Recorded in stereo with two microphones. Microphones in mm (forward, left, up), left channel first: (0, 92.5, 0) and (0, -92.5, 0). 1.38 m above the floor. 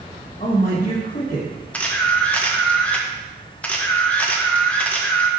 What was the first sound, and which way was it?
A man speaking, 40° left (ahead or behind).